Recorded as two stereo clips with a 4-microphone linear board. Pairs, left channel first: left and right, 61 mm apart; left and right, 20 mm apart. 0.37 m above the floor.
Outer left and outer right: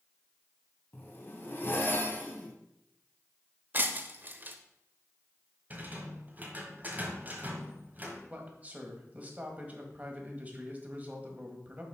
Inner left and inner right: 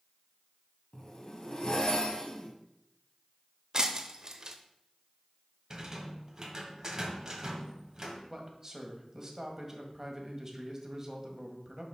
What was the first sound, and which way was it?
A zipper, 35° left (ahead or behind).